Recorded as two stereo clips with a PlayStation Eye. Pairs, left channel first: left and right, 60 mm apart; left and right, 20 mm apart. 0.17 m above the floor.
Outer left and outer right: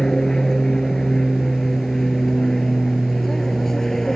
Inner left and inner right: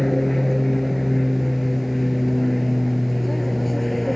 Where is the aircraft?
10° left (ahead or behind); by 4.2 s 5° left (ahead or behind).